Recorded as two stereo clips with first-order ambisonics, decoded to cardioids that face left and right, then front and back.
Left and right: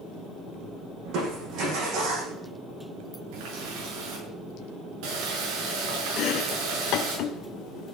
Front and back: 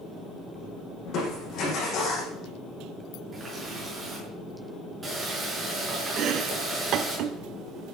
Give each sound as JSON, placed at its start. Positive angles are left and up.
{"t": 1.1, "sound": "crushing", "azimuth_deg": -50, "distance_m": 7.5}
{"t": 3.3, "sound": "a running tap", "azimuth_deg": -100, "distance_m": 7.5}
{"t": 6.2, "sound": "chopping", "azimuth_deg": 130, "distance_m": 1.1}